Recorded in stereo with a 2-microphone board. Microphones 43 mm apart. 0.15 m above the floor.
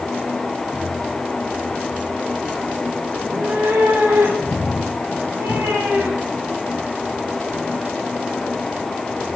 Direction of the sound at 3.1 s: 80° right.